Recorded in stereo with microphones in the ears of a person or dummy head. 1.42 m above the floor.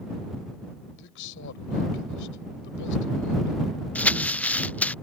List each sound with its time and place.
1.0 s a man speaking: 70° left (ahead or behind)
4.0 s crumpling: 5° left (ahead or behind)